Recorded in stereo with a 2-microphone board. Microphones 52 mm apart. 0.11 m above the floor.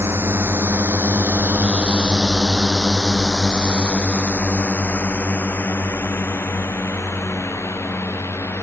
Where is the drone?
55° right (ahead or behind); by 8.6 s 55° left (ahead or behind).